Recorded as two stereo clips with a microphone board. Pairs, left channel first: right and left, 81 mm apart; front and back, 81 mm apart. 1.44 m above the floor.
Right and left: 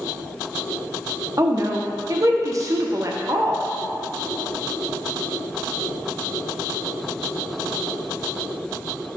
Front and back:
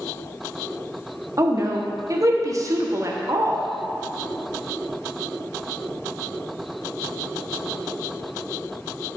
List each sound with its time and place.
1.4 s a woman speaking: 135° left, 1.1 m